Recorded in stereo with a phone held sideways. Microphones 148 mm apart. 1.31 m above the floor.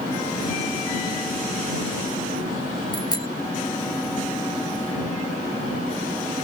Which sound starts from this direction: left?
A bicycle bell, at 2.9 s.